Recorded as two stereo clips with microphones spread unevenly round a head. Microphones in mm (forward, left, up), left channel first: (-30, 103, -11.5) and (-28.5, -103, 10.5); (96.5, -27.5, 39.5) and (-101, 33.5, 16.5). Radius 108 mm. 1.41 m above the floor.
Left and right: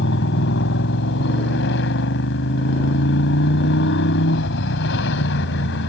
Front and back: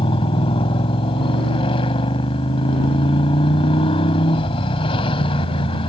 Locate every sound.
0.0 s a motorcycle: 45° left